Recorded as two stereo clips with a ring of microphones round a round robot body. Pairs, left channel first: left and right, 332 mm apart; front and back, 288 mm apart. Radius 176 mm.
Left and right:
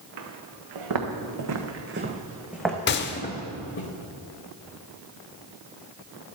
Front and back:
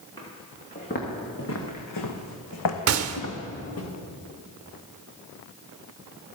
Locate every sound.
0.2 s footsteps: 80° right, 2 m; by 3.9 s 35° left, 1.9 m
2.9 s a gunshot: 145° left, 0.7 m